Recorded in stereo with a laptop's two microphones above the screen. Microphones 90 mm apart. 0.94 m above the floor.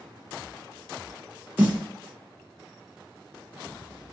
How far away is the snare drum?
About 0.6 m.